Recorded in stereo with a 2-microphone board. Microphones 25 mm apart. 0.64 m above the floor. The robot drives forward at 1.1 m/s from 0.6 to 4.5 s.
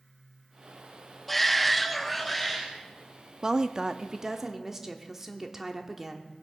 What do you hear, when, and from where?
1.3 s a shout: 5° left (ahead or behind), 0.8 m; by 2.7 s centre (ahead or behind), 1.4 m
3.4 s a woman speaking: 25° right (ahead or behind), 0.6 m; by 6.3 s 15° right (ahead or behind), 1.2 m